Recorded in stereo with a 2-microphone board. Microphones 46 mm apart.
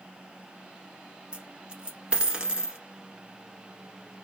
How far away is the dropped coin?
About 1.1 m.